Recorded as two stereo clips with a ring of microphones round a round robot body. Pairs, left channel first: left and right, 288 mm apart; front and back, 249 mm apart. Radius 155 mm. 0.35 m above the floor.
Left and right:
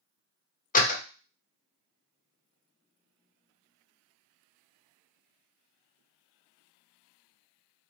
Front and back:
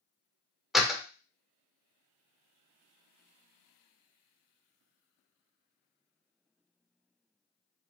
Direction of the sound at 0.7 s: 90° left.